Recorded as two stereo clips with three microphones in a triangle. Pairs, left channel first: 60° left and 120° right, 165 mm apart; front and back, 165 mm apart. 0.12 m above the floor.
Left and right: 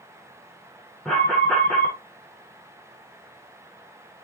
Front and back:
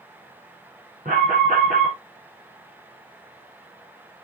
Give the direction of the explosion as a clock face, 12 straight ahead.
I don't hear an explosion.